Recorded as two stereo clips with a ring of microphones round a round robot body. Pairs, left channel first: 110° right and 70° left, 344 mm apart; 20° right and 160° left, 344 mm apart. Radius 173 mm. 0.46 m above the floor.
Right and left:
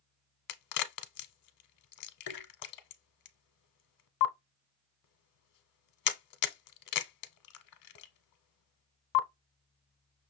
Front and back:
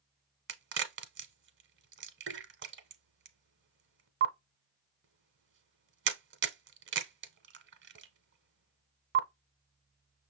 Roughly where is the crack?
Behind right.